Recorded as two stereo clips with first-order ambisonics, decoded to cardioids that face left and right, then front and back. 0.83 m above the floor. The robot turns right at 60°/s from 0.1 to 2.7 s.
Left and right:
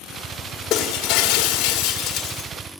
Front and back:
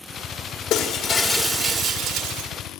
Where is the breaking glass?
35° left, 1.5 m; by 2.5 s 145° left, 1.5 m.